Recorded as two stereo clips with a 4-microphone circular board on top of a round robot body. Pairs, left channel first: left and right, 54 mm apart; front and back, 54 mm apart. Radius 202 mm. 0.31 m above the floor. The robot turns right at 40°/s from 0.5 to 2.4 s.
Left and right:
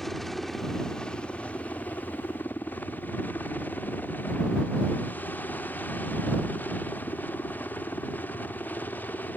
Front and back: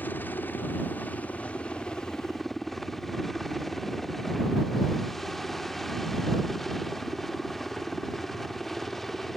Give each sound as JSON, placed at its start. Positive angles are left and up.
{"t": 0.0, "sound": "a helicopter", "azimuth_deg": 5}